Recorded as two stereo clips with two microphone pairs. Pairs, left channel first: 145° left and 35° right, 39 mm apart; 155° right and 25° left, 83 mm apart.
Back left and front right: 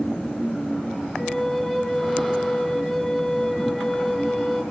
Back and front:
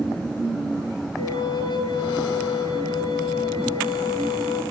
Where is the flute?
145° right, 4 m.